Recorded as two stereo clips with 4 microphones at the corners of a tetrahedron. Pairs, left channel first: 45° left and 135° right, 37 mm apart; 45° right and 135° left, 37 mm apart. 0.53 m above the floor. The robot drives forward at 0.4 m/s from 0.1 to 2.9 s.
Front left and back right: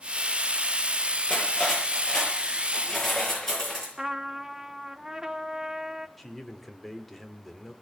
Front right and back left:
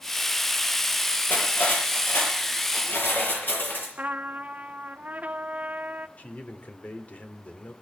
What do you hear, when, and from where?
1.3 s cutlery clinking: 30° right, 7 m; by 3.9 s 35° right, 6.5 m
4.0 s a trumpet: 150° left, 0.8 m
6.2 s a man speaking: 40° right, 1.9 m